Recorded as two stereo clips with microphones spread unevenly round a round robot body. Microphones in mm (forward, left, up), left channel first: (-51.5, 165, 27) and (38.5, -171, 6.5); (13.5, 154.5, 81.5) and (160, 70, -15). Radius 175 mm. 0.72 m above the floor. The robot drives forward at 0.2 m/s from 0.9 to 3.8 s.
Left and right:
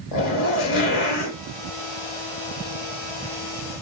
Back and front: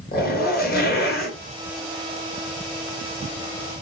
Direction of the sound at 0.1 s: 115° left.